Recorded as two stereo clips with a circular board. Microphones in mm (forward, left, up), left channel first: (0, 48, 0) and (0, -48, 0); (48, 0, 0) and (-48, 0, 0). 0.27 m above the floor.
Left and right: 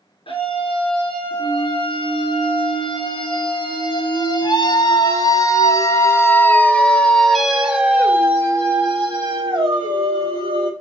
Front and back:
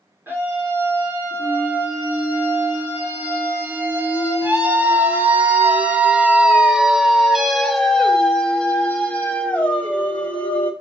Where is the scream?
110° left, 4.5 m; by 10.7 s 70° right, 2.5 m.